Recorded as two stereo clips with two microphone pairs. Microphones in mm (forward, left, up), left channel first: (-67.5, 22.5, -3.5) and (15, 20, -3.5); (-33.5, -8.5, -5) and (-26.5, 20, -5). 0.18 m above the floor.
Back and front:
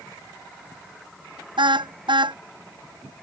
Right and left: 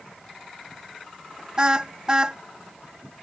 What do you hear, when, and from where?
1.6 s a car horn: 15° left